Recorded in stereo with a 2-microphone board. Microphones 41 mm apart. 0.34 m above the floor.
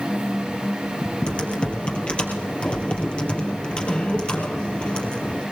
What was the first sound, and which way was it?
Typing on a keyboard, 30° left (ahead or behind).